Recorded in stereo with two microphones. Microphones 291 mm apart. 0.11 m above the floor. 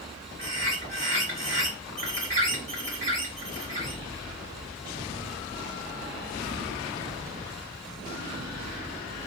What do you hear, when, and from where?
0.4 s a bird: 20° right (ahead or behind), 1.9 m